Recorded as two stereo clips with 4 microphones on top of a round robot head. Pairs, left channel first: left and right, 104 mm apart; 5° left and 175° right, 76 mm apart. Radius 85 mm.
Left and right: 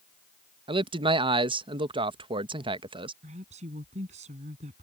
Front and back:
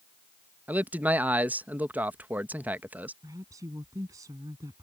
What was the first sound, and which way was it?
A man speaking, 110° right.